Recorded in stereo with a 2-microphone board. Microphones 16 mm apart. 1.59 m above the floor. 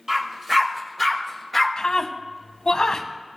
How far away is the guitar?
No guitar in this recording.